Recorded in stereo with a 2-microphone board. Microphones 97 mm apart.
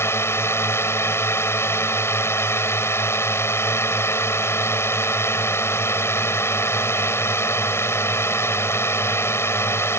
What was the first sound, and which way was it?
A drone, 25° left (ahead or behind).